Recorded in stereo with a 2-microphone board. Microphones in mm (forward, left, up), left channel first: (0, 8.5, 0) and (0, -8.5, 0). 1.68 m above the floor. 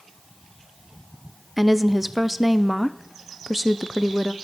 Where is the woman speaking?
5° right (ahead or behind), 0.5 m.